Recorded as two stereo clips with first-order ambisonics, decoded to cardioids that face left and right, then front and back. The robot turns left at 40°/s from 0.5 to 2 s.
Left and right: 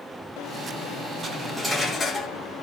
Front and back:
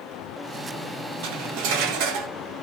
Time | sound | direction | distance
1.2 | cutlery clinking | 160° right | 1.4 m